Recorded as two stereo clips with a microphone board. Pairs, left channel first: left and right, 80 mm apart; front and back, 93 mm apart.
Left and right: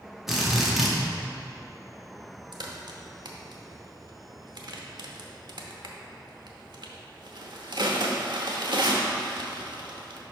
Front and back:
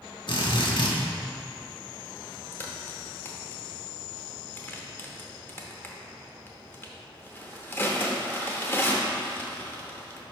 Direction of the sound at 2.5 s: 65° right.